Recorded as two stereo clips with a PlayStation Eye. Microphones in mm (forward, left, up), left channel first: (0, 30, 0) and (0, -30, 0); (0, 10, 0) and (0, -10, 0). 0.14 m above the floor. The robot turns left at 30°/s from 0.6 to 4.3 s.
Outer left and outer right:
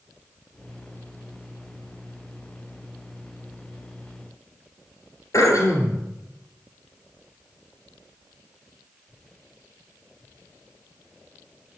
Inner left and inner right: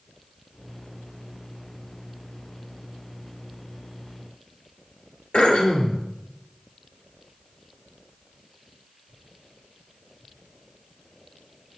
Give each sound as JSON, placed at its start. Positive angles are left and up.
{"t": 5.3, "sound": "throat clearing", "side_deg": 60, "distance_m": 2.5}